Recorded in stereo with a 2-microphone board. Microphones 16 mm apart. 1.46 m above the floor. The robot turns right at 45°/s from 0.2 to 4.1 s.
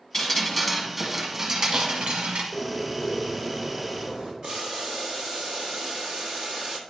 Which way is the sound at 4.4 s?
55° right (ahead or behind).